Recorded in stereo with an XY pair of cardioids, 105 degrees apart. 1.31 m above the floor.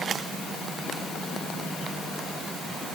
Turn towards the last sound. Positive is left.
No sound to turn to.